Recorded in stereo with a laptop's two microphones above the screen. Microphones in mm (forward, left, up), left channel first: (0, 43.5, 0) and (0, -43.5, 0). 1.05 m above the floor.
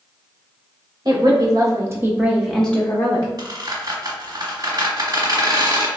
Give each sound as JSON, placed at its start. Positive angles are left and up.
{"t": 1.1, "sound": "a woman speaking", "side_deg": -50, "distance_m": 1.2}
{"t": 3.4, "sound": "a squeak", "side_deg": -50, "distance_m": 1.4}